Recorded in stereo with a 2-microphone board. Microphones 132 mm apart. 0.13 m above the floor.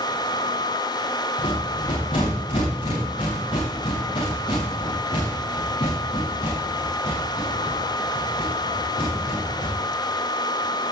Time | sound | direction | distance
1.4 | a rattle | 45° left (ahead or behind) | 9 m